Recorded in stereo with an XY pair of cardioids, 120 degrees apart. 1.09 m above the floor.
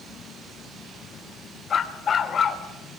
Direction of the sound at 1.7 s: 35° left.